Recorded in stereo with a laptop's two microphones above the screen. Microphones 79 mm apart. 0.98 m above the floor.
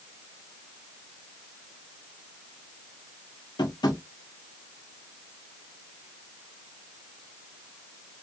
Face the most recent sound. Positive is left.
turn(degrees=65)  # may be behind; listen again after turning